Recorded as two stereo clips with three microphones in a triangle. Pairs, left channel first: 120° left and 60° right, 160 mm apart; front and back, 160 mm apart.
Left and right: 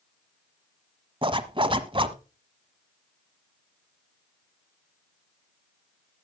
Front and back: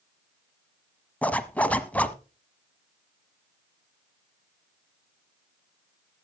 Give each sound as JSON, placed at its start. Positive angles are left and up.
{"t": 1.2, "sound": "a zipper", "azimuth_deg": -75, "distance_m": 1.1}